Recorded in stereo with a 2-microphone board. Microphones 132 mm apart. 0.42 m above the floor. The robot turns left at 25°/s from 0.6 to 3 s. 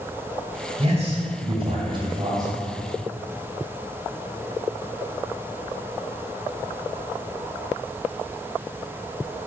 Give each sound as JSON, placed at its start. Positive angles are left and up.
{"t": 0.8, "sound": "a man speaking", "azimuth_deg": -100, "distance_m": 2.0}